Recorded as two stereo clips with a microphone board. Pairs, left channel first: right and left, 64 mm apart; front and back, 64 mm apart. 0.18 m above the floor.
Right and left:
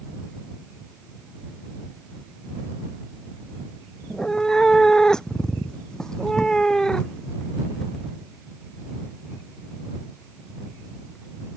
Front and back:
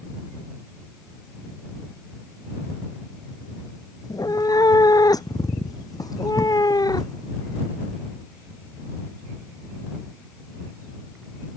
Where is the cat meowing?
10° right.